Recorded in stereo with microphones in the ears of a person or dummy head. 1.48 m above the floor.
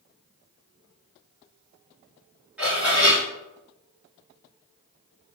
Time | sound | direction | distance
2.6 | dishes clattering | 5° right (ahead or behind) | 1.8 m